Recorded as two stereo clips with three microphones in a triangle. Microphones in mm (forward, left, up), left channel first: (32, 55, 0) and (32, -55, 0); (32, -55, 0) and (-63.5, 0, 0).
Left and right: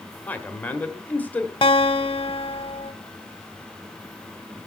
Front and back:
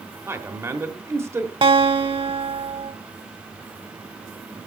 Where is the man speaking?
140° left, 1.1 m.